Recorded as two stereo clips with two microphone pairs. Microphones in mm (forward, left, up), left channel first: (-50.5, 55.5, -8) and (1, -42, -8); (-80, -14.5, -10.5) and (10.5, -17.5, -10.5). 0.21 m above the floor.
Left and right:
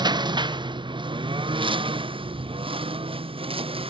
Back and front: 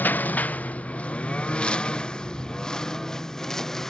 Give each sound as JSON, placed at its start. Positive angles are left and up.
{"t": 0.0, "sound": "a lawn mower", "azimuth_deg": -110}